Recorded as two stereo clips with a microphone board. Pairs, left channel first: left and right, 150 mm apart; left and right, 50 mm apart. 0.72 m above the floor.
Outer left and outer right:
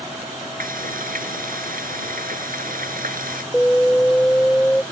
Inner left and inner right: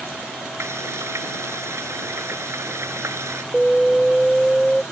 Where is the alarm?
10° left (ahead or behind).